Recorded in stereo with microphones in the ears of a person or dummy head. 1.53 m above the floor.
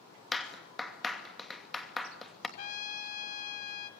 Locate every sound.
0.3 s a clap: centre (ahead or behind), 2.5 m
2.6 s a trumpet: 45° left (ahead or behind), 2.5 m